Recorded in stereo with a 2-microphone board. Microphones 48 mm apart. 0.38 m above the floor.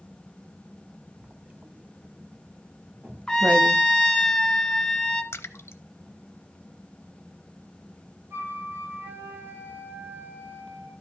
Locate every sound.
1.2 s writing: 30° right (ahead or behind), 0.8 m
3.3 s a trumpet: 10° left (ahead or behind), 1.1 m
5.3 s a splash: 60° left (ahead or behind), 0.6 m
8.3 s a flute: 60° right (ahead or behind), 5 m